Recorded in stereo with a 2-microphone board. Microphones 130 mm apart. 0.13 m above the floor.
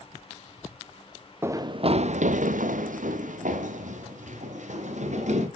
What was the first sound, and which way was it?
Running footsteps, 20° right (ahead or behind).